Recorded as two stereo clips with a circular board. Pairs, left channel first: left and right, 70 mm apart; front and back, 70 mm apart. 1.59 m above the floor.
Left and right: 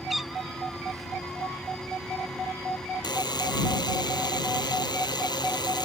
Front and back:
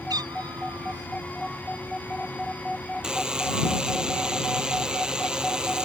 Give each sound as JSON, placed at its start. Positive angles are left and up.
{"t": 0.1, "sound": "a cat meowing", "azimuth_deg": 180}
{"t": 3.0, "sound": "a buzzer", "azimuth_deg": 100}